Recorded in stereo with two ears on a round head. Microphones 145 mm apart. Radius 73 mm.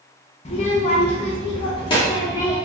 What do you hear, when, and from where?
0.5 s a child speaking: 40° left (ahead or behind), 0.6 m; by 2.6 s 25° left (ahead or behind), 1.3 m